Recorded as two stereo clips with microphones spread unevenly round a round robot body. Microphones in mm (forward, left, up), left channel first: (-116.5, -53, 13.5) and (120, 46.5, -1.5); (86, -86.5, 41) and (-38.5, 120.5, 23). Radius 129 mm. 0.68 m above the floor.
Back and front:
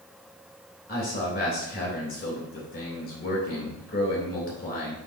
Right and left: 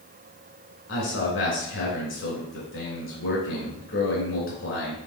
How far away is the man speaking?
About 3 m.